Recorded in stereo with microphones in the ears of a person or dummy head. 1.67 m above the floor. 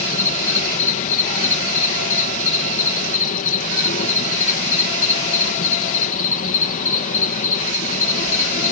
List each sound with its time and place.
0.0 s an insect: 40° left (ahead or behind)